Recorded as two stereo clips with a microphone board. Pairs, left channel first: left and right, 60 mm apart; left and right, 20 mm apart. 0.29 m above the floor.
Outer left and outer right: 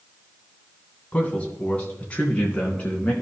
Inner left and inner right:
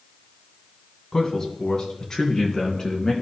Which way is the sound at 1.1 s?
25° left (ahead or behind).